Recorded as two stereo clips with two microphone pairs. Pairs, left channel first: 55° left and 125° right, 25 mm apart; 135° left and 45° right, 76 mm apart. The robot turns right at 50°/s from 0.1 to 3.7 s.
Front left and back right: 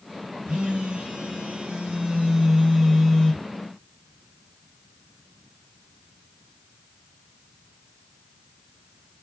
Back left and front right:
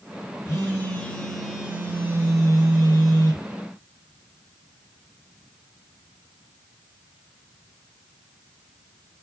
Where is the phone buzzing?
175° right, 3 m; by 3.5 s 25° right, 3 m.